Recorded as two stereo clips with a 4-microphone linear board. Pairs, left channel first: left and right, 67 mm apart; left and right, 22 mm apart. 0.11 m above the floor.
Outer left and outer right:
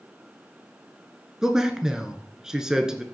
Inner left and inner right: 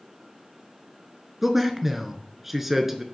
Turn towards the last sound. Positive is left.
turn(degrees=-10)  # may be behind; listen again after turning